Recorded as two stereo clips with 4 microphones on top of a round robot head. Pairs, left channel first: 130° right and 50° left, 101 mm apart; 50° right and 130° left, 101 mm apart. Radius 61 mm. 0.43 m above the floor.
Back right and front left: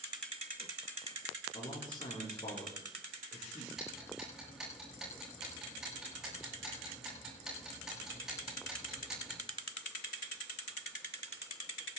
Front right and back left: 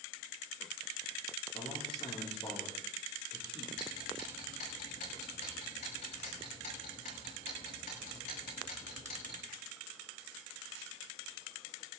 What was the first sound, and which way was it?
A man speaking, 85° right.